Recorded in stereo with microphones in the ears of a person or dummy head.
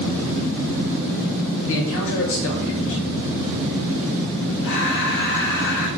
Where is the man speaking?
70° left (ahead or behind), 0.8 m.